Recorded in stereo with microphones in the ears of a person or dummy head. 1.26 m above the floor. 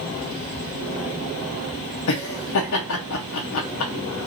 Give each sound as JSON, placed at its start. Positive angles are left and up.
{"t": 2.1, "sound": "laughter", "side_deg": 65, "distance_m": 0.6}